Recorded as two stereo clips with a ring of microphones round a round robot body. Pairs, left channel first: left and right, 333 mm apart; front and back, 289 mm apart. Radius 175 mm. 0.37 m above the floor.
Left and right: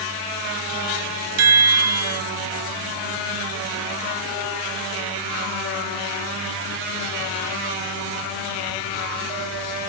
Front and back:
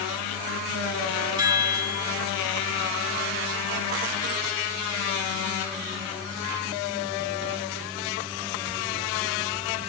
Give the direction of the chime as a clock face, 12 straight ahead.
3 o'clock.